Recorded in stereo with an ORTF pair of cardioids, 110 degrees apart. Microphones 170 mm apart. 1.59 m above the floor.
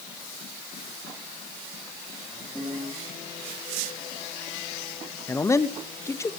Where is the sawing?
No sawing in this recording.